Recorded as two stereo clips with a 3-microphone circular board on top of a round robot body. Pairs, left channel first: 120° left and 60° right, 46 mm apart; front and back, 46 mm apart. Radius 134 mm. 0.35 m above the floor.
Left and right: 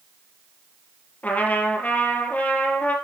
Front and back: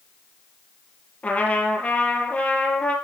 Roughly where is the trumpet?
Ahead left.